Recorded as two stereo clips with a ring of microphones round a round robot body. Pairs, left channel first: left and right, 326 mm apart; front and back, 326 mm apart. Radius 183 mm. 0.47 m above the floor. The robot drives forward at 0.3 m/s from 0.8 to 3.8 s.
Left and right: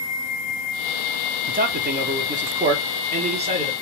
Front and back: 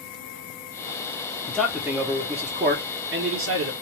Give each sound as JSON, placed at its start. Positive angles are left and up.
{"t": 1.5, "sound": "a man speaking", "azimuth_deg": -80, "distance_m": 0.7}